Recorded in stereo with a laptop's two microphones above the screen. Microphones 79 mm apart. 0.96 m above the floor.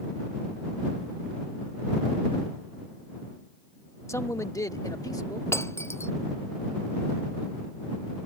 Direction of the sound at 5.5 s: 35° left (ahead or behind).